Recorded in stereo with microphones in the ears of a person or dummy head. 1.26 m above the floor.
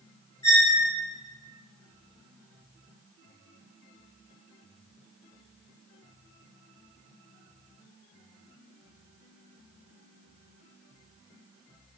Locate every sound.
0.4 s a squeak: 20° left (ahead or behind), 0.9 m